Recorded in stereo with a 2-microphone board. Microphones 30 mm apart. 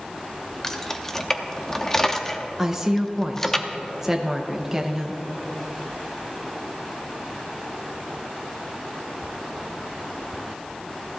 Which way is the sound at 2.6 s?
15° right (ahead or behind).